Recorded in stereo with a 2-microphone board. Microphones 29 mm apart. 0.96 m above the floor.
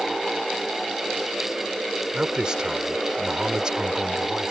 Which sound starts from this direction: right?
A man speaking, at 2.1 s.